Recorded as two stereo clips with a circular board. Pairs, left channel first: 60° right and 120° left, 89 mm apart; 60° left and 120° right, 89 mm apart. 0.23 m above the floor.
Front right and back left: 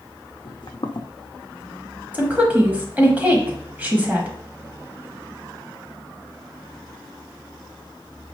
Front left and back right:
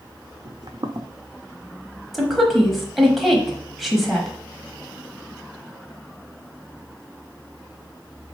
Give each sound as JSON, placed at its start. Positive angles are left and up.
{"t": 0.5, "sound": "footsteps", "azimuth_deg": -80, "distance_m": 0.5}
{"t": 2.1, "sound": "a woman speaking", "azimuth_deg": 155, "distance_m": 1.0}